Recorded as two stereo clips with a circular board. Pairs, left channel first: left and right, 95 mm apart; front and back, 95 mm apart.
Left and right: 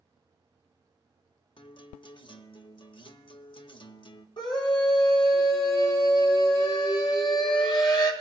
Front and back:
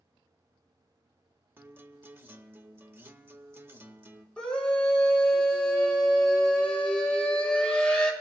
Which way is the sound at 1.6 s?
115° left.